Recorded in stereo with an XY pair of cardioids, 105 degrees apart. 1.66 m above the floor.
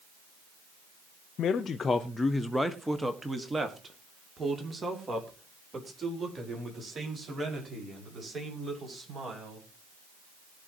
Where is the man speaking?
70° left, 0.9 m; by 9.7 s 40° right, 7.5 m.